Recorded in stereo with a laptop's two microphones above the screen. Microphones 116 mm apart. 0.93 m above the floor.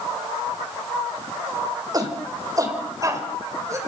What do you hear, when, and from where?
1.9 s a shout: 35° right (ahead or behind), 4.5 m; by 3.8 s 25° right (ahead or behind), 5.5 m